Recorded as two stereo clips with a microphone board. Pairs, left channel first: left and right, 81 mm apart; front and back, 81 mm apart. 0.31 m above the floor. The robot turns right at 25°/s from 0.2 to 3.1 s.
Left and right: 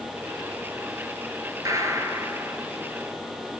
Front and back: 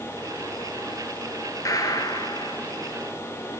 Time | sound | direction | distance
1.6 | a gunshot | 45° right | 0.9 m